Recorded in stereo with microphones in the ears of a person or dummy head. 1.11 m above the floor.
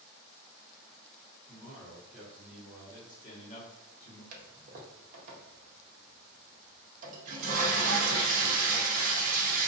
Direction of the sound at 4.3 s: 45° right (ahead or behind).